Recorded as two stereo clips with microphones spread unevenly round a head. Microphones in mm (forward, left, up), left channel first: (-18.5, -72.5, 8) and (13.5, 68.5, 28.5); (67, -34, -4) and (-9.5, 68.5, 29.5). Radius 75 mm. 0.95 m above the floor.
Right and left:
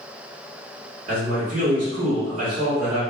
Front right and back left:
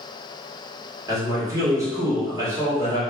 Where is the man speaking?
55° left, 1.3 m.